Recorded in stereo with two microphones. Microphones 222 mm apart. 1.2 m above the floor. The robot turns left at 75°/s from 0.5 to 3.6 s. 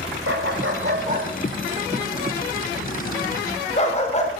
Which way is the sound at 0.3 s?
65° right (ahead or behind).